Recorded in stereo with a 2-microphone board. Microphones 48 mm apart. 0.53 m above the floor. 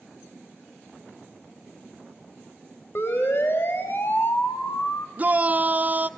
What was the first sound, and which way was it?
A siren, 55° left (ahead or behind).